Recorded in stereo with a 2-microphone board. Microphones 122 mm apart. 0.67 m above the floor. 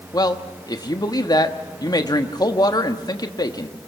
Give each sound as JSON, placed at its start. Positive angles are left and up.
{"t": 0.1, "sound": "a man speaking", "side_deg": 35, "distance_m": 1.3}